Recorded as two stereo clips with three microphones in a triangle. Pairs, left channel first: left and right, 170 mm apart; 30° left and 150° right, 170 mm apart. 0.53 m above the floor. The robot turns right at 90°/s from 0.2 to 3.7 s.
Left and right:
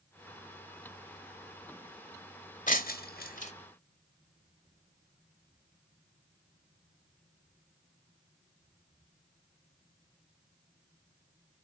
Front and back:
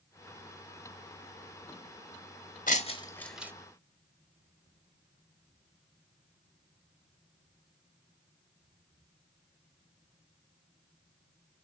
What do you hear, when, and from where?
2.7 s breaking glass: 60° left, 1.1 m; by 3.5 s 135° left, 1.1 m